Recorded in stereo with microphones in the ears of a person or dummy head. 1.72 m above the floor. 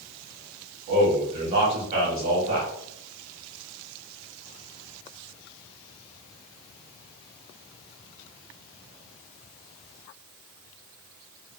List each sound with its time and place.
0.9 s a man speaking: 40° right (ahead or behind), 1.0 m